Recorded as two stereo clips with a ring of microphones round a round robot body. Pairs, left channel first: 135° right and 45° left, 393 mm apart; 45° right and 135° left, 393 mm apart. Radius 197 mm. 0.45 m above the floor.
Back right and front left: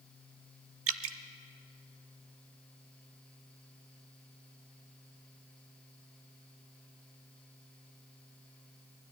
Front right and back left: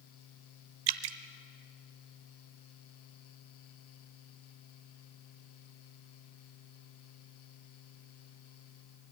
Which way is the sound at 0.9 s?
105° left.